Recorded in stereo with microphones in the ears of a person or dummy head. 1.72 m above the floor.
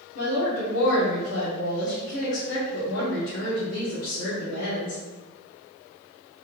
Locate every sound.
0.1 s a woman speaking: 80° left, 1.7 m